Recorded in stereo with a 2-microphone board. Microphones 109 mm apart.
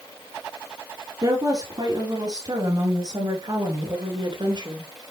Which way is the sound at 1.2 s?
40° right (ahead or behind).